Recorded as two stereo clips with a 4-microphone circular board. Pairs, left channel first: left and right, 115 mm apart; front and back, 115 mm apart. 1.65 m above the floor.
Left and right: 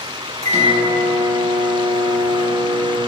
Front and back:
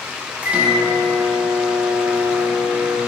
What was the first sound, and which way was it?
A microwave, 100° right.